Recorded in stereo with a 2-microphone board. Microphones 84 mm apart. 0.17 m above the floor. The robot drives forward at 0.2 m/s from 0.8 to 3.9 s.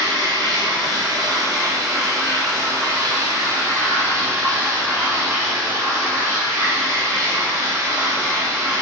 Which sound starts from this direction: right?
Running water, at 0.0 s.